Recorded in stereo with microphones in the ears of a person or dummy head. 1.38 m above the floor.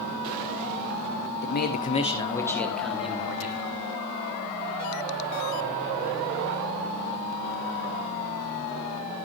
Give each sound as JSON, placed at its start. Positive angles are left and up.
{"t": 1.4, "sound": "a man speaking", "side_deg": 60, "distance_m": 1.8}